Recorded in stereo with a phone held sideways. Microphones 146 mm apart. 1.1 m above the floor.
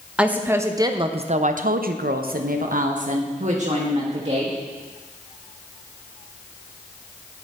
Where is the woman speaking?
5° right (ahead or behind), 0.9 m; by 4.6 s 45° right (ahead or behind), 1.6 m.